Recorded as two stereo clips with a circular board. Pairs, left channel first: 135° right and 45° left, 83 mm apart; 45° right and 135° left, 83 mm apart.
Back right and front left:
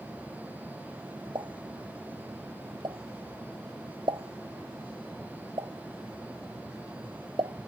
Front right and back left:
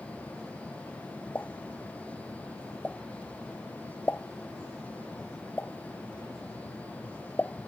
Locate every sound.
1.4 s a pop: 25° left